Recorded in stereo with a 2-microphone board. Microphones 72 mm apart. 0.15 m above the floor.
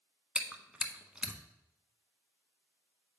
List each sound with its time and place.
0.3 s chewing: 10° right (ahead or behind), 0.7 m